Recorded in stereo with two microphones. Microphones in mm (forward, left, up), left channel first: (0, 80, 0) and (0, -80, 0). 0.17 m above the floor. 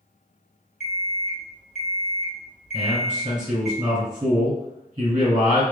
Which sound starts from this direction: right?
A man speaking, at 2.7 s.